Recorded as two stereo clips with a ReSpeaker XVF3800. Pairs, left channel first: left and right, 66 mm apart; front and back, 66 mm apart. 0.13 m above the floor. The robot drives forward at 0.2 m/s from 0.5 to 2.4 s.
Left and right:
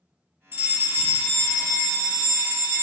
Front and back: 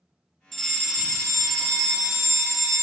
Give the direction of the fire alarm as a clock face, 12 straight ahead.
3 o'clock.